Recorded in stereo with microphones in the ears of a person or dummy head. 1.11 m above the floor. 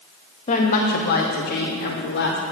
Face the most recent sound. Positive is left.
turn(degrees=50)  # may be behind; listen again after turning